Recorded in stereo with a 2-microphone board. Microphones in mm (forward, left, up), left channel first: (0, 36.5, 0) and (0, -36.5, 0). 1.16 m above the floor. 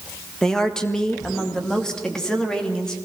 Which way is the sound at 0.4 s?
5° left (ahead or behind).